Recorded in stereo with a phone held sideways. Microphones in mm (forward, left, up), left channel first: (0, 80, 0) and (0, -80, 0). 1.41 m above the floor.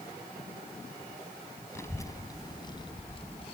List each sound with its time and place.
1.8 s a child speaking: 15° left (ahead or behind); by 3.5 s 40° left (ahead or behind)